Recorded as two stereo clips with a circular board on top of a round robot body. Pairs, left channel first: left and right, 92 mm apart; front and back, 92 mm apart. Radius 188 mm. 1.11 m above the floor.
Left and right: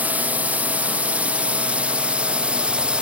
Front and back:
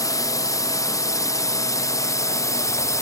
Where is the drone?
25° right; by 3.0 s 20° right.